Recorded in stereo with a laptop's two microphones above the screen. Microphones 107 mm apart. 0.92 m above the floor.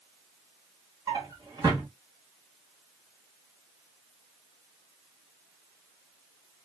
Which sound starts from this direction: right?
A drawer, at 1.1 s.